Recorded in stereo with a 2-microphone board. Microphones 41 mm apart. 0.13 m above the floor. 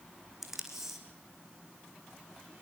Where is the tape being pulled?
10° right (ahead or behind), 3.5 m.